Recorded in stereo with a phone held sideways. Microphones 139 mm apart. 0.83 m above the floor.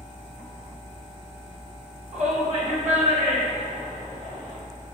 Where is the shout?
65° right (ahead or behind), 3 m; by 4.6 s 55° right (ahead or behind), 4.5 m.